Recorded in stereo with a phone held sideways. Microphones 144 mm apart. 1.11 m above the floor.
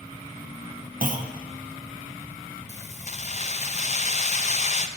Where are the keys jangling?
50° left (ahead or behind), 0.5 m.